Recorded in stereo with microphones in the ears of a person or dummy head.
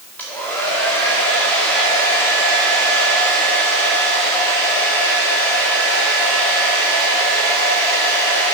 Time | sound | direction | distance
0.2 | a hair dryer | 5° left (ahead or behind) | 2 m